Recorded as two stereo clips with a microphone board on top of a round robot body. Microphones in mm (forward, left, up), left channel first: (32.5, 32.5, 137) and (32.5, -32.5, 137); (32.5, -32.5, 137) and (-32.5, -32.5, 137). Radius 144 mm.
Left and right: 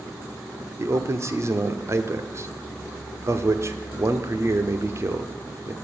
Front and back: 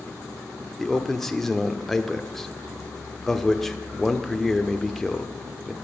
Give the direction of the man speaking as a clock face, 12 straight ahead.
3 o'clock.